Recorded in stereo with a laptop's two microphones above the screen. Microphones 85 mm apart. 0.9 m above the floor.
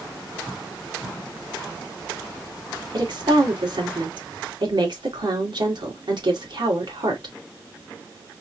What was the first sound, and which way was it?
A woman speaking, 65° right (ahead or behind).